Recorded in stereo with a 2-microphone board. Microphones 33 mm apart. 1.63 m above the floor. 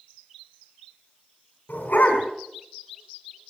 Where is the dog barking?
60° left (ahead or behind), 4.5 m.